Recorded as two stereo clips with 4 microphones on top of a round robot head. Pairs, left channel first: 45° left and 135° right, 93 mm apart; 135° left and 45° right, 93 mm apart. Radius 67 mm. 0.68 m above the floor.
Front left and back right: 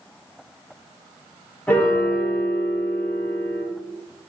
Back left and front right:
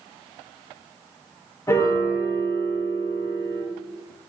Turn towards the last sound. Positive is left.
turn(degrees=105)